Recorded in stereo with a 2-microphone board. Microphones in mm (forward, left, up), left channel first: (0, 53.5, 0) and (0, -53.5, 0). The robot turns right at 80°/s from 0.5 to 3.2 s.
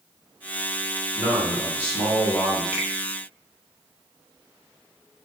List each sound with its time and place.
1.1 s a man speaking: 85° right, 1.2 m; by 2.6 s 30° left, 1.2 m
2.7 s a finger snap: 15° right (ahead or behind), 0.7 m; by 2.9 s 10° right (ahead or behind), 0.7 m